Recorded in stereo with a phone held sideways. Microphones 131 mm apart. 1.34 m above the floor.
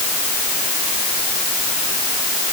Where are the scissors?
I don't hear scissors.